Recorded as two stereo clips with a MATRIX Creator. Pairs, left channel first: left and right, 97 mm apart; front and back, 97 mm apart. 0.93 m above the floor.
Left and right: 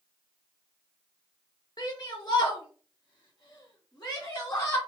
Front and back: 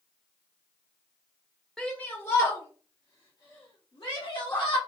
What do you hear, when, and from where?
1.8 s a shout: 80° left, 0.7 m; by 4.8 s 25° left, 2.0 m